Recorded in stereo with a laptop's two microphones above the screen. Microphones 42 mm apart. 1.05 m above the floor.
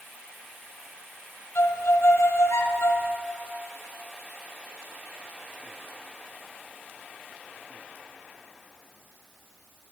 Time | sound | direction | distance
1.6 | a violin | 75° left (ahead or behind) | 0.5 m